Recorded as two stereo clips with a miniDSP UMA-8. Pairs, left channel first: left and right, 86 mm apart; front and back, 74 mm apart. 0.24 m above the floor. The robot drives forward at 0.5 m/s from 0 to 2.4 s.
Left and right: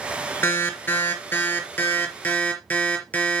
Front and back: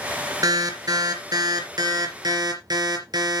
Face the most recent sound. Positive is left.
turn(degrees=160)